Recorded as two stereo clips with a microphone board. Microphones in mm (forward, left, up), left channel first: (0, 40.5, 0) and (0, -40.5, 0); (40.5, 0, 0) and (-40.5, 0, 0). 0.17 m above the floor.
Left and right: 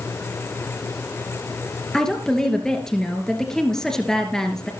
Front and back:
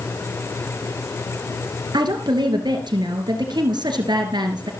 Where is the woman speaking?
170° left, 2.5 m.